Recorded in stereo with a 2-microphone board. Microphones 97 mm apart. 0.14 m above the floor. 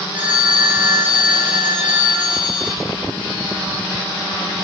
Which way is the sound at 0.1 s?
20° right (ahead or behind).